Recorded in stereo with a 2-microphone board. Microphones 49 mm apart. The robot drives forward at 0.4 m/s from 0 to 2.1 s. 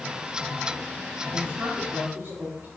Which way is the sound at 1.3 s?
60° right (ahead or behind).